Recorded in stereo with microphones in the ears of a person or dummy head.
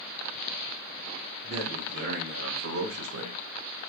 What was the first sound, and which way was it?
A man speaking, 50° right (ahead or behind).